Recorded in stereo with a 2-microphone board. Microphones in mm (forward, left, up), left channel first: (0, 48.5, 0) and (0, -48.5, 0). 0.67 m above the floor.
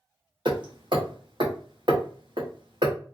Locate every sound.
0.5 s hammering: 50° right (ahead or behind), 0.9 m